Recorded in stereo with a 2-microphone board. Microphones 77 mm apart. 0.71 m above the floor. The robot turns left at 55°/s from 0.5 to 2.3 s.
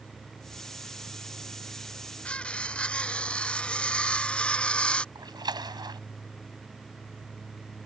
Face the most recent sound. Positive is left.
turn(degrees=-65)  # may be behind; listen again after turning